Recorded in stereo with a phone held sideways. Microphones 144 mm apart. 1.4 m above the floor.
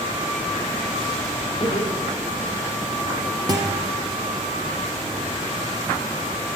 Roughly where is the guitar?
Right.